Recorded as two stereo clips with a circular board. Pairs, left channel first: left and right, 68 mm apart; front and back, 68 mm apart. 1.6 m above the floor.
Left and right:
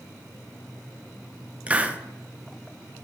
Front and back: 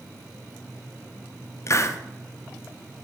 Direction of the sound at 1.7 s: 25° right.